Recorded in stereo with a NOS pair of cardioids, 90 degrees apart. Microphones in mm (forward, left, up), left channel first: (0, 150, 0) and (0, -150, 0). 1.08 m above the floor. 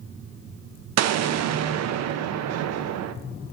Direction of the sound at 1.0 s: 60° right.